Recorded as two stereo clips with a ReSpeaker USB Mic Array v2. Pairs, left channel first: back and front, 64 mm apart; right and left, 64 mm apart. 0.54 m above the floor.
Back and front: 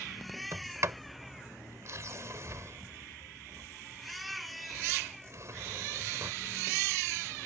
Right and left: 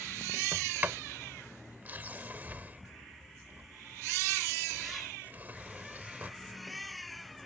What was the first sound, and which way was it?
A sliding door, 35° left.